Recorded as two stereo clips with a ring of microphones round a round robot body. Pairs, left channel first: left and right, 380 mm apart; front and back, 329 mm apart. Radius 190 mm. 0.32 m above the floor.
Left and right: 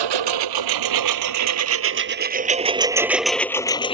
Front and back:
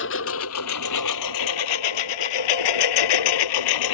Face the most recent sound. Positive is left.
turn(degrees=15)